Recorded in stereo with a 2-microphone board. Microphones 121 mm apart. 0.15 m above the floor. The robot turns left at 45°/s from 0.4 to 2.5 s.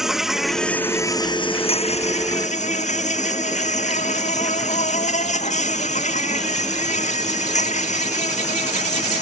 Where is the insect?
Straight behind; by 9.2 s 90° left.